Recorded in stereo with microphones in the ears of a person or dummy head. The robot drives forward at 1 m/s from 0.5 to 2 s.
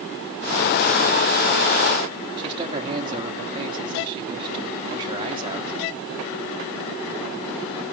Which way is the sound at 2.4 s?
25° right (ahead or behind).